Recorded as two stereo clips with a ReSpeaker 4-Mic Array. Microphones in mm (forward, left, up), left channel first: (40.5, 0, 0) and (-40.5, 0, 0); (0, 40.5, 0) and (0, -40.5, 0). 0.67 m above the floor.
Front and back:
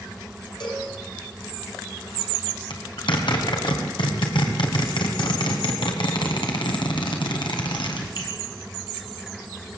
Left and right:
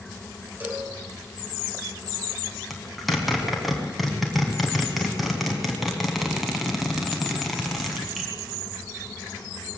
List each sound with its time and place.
0.6 s a cowbell: 20° right, 4 m
2.7 s a zipper: straight ahead, 3.5 m